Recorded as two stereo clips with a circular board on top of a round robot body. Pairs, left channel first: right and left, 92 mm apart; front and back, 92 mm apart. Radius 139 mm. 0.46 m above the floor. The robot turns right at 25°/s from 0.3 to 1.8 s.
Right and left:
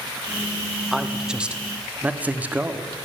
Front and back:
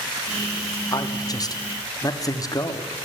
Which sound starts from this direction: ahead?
A man speaking, at 0.9 s.